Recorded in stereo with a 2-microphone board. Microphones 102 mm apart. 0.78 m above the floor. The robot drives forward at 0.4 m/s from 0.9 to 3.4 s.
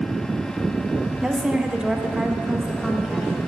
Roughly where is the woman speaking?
Centre.